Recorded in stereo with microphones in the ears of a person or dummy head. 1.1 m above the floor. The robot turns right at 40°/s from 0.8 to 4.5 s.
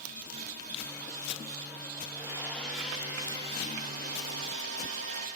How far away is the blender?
About 9 m.